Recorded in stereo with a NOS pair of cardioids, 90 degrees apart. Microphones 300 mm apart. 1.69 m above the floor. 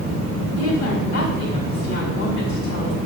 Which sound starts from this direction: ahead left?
A woman speaking, at 0.6 s.